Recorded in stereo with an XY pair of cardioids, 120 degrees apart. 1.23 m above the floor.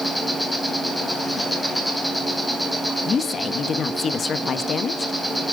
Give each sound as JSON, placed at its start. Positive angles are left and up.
{"t": 0.0, "sound": "an insect", "azimuth_deg": 5, "distance_m": 3.0}
{"t": 3.0, "sound": "a woman speaking", "azimuth_deg": 40, "distance_m": 1.4}